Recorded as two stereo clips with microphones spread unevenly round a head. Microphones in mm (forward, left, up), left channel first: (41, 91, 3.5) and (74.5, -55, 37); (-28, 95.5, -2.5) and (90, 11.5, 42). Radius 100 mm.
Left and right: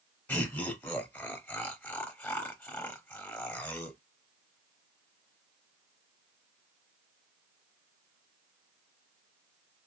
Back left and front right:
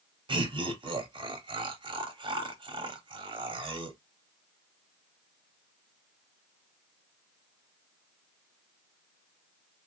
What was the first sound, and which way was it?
Laughter, 25° left.